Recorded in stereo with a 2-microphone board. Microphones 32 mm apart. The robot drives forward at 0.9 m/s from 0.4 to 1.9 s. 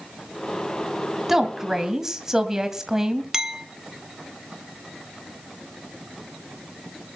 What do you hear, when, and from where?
1.3 s a woman speaking: 15° right (ahead or behind), 2.5 m; by 3.3 s 20° right (ahead or behind), 2 m
3.3 s a clink: 20° right (ahead or behind), 0.6 m